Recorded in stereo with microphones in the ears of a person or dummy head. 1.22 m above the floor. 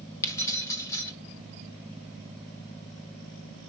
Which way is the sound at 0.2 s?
20° left (ahead or behind).